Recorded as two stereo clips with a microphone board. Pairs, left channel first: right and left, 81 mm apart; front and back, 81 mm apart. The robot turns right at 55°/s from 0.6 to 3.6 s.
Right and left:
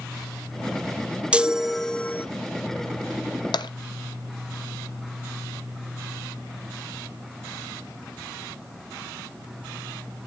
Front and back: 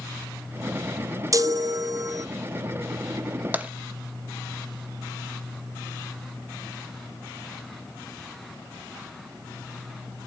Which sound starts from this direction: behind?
A chime, at 1.3 s.